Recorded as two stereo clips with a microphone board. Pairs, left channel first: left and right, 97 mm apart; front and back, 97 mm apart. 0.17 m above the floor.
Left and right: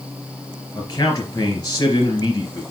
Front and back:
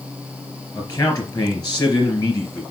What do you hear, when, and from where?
0.8 s a man speaking: 45° left, 3 m